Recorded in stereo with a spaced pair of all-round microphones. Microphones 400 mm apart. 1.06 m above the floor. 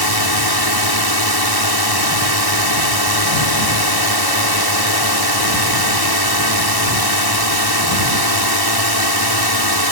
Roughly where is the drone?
Left.